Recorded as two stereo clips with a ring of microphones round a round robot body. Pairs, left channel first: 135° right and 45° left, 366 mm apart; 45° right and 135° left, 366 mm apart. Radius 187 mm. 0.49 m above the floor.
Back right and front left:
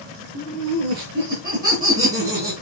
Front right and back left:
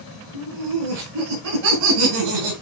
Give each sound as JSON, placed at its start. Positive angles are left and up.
{"t": 0.3, "sound": "laughter", "azimuth_deg": 105, "distance_m": 5.5}